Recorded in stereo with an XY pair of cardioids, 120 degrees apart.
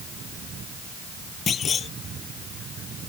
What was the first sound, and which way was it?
A clunk, 40° left.